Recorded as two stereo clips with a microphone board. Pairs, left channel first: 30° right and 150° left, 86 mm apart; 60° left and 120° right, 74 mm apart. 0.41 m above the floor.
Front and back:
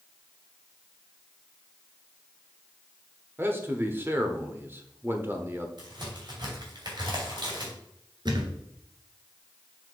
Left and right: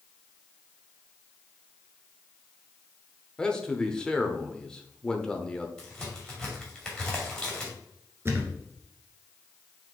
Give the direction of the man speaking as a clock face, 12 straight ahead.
8 o'clock.